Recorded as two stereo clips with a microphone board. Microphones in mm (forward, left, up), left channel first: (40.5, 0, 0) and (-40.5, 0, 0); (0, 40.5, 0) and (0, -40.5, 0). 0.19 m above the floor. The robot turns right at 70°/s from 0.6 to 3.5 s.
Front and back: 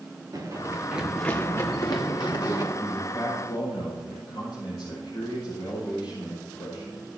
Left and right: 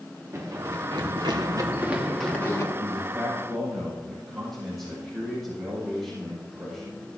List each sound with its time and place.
0.3 s running footsteps: 145° right, 2.5 m; by 2.6 s 40° left, 4 m
2.7 s a man speaking: 50° right, 7.5 m; by 7.0 s straight ahead, 7.5 m